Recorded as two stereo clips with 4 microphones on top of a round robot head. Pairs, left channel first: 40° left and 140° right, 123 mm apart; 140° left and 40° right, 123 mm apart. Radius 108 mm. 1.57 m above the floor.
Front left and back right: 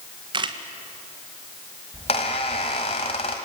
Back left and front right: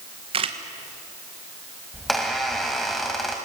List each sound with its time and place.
0.3 s a camera shutter: 85° right, 1.6 m
1.9 s a squeak: 55° left, 1.5 m